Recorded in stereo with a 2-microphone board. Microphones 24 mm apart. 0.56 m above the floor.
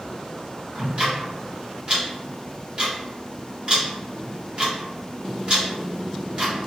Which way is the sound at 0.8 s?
40° right (ahead or behind).